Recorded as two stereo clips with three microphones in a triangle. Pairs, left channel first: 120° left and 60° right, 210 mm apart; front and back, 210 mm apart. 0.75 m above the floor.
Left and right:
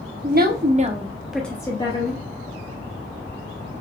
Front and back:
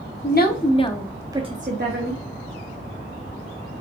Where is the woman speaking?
25° right, 0.8 m; by 2.2 s 175° left, 0.9 m.